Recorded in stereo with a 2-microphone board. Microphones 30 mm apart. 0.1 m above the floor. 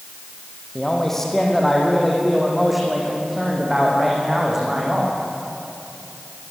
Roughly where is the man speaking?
Centre.